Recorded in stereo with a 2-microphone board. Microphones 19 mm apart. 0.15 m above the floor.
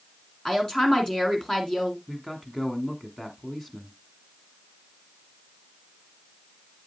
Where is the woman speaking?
30° left (ahead or behind), 1.8 m.